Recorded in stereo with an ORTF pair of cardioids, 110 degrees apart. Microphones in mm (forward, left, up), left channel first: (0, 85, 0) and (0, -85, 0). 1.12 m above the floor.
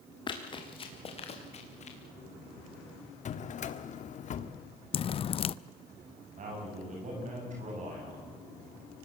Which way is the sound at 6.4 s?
45° right.